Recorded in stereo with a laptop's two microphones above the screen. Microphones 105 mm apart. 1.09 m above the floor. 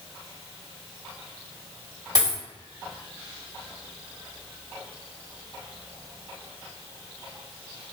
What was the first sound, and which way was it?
A dropped coin, 40° right (ahead or behind).